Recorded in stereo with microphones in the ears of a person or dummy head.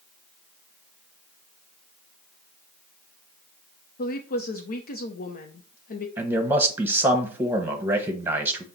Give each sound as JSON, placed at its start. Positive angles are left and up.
{"t": 4.0, "sound": "a woman speaking", "side_deg": 50, "distance_m": 0.6}
{"t": 6.2, "sound": "a man speaking", "side_deg": -15, "distance_m": 1.0}